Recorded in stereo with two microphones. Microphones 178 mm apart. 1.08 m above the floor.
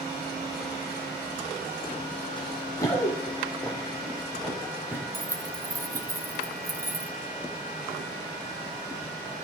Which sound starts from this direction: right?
Keys jangling, at 5.1 s.